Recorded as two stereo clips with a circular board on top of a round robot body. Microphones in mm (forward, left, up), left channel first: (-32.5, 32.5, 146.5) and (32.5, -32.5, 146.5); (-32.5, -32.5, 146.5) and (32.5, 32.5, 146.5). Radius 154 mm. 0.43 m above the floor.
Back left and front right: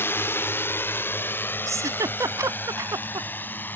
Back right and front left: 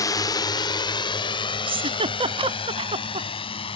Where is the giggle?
15° left.